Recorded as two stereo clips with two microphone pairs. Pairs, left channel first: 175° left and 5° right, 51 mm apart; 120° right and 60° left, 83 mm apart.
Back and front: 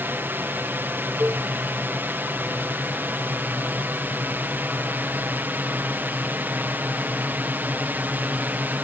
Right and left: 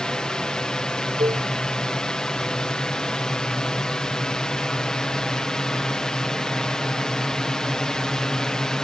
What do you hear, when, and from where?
0.0 s a drone: 40° right
1.2 s a cowbell: 50° left